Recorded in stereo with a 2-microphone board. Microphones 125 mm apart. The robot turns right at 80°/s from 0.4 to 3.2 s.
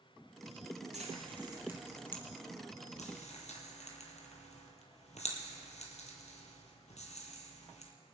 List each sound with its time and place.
0.9 s frying: 75° right (ahead or behind), 2.5 m; by 7.9 s 75° left (ahead or behind), 2.5 m